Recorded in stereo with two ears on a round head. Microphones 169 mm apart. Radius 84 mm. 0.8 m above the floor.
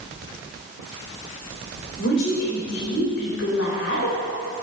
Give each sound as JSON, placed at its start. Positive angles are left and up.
{"t": 2.0, "sound": "a woman speaking", "side_deg": 70, "distance_m": 3.5}